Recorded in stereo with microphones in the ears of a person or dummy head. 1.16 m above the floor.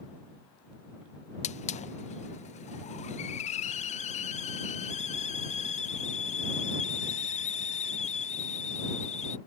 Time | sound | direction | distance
1.4 | a hiss | 35° left (ahead or behind) | ?